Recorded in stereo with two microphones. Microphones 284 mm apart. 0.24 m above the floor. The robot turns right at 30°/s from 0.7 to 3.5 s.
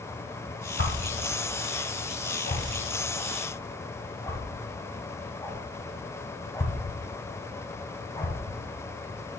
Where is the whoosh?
40° left (ahead or behind), 1.4 m; by 8.3 s 10° left (ahead or behind), 1.4 m.